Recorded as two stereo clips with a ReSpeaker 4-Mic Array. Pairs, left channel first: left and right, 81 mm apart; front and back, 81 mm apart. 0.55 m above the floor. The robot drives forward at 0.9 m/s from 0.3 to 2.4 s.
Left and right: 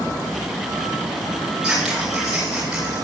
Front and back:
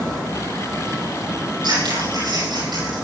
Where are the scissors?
170° right, 6.5 m.